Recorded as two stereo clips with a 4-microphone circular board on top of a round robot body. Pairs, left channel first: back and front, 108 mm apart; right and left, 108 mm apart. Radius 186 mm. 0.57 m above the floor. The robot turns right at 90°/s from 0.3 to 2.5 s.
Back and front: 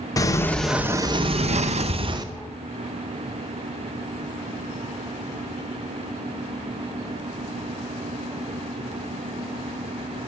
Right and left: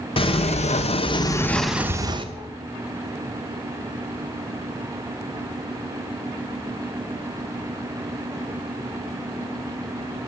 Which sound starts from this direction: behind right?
A sliding door, at 0.2 s.